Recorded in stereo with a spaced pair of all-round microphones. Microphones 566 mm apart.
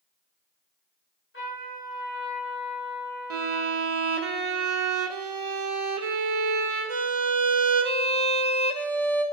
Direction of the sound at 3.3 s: 80° right.